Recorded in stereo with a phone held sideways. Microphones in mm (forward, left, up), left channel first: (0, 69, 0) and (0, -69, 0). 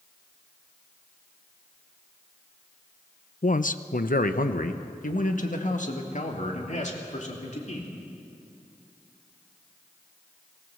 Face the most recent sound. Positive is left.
turn(degrees=55)  # may be behind; listen again after turning